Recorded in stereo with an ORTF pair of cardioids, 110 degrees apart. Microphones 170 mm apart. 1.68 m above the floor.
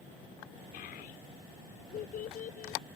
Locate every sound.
0.7 s a child speaking: 65° left; by 2.8 s 50° left